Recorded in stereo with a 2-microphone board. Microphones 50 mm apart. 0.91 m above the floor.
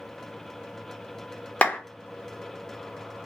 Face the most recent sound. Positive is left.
turn(degrees=30)  # may be behind; listen again after turning